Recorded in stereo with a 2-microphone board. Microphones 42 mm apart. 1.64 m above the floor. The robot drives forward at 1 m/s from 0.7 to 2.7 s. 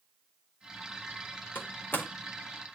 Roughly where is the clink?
I don't hear a clink.